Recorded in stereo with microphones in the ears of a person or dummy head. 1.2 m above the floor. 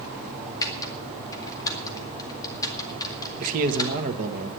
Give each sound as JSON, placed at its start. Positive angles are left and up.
{"t": 0.6, "sound": "typing on a keyboard", "side_deg": 20, "distance_m": 2.0}
{"t": 3.4, "sound": "a man speaking", "side_deg": -45, "distance_m": 1.6}